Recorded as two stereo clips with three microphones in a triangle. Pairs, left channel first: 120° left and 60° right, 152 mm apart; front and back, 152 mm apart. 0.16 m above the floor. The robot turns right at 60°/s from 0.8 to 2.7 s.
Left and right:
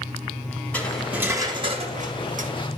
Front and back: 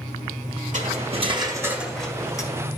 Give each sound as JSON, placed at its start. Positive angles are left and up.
{"t": 0.7, "sound": "cutlery clinking", "azimuth_deg": -160, "distance_m": 1.6}